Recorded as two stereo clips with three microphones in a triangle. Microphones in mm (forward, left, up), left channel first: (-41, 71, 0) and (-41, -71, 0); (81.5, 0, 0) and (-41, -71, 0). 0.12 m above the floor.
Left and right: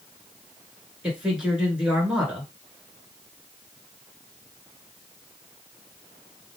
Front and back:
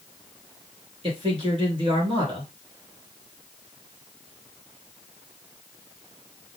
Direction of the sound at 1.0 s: 170° right.